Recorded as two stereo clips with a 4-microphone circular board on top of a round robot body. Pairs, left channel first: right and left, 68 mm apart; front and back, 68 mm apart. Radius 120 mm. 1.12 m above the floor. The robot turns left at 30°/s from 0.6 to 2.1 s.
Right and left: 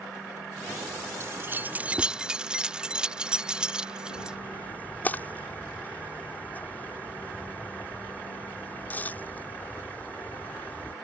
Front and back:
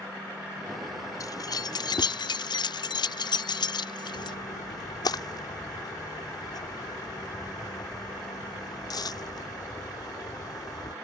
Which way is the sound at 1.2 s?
40° left.